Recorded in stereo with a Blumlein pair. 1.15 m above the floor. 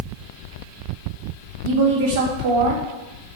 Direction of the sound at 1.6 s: 55° right.